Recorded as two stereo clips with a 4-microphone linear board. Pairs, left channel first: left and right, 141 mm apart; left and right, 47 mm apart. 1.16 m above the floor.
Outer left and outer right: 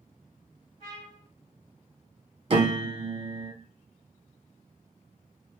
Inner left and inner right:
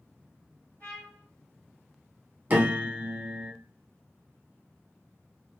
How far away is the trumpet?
About 1.7 m.